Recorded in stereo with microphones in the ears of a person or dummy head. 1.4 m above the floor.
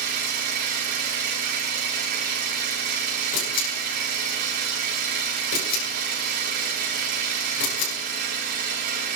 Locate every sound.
0.0 s an engine running: 55° right (ahead or behind), 3.5 m
3.3 s a camera shutter: 70° left (ahead or behind), 8.5 m